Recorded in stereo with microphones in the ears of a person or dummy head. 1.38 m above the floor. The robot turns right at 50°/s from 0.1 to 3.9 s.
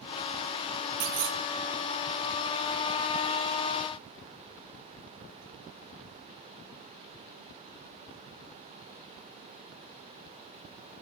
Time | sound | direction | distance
1.0 | a clunk | 40° right (ahead or behind) | 1.5 m